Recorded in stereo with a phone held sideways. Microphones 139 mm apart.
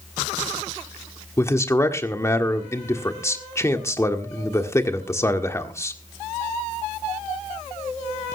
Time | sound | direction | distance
1.4 | a man speaking | 20° left (ahead or behind) | 1.6 m